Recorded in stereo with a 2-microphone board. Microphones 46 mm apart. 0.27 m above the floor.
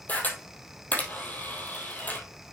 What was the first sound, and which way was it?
A camera shutter, 40° left (ahead or behind).